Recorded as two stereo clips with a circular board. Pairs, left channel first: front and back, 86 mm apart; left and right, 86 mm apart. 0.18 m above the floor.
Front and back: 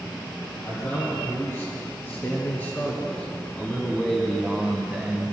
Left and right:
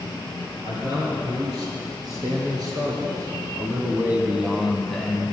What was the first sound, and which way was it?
A man speaking, 60° right.